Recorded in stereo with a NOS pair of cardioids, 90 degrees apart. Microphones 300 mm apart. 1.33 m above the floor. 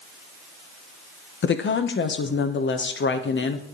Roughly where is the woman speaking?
Ahead left.